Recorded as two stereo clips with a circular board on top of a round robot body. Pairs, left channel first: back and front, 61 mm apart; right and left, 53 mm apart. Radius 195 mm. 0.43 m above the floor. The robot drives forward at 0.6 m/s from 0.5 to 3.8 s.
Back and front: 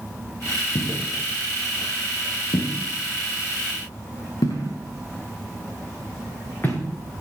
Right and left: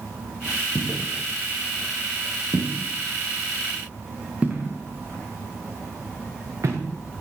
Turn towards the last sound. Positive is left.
turn(degrees=115)